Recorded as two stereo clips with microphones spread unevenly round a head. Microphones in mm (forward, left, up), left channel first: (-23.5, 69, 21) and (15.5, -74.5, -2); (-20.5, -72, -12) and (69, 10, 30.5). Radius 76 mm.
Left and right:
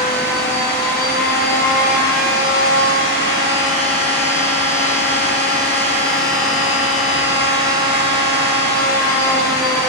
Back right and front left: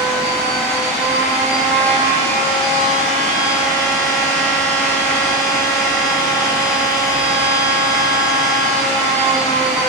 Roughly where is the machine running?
Behind left.